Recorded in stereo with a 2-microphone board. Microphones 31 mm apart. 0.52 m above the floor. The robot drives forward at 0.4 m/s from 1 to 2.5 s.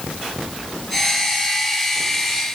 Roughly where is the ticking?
I don't hear ticking.